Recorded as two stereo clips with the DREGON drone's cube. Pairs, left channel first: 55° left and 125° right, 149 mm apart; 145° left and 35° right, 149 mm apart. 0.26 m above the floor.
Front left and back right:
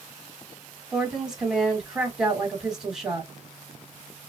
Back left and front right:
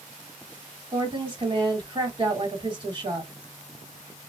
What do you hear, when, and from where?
0.9 s a woman speaking: 40° right, 1.6 m